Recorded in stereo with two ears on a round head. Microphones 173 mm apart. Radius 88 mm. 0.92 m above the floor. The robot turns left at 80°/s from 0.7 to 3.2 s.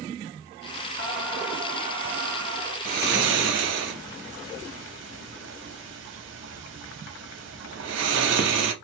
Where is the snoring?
40° right (ahead or behind), 0.8 m; by 8.7 s 65° right (ahead or behind), 0.8 m.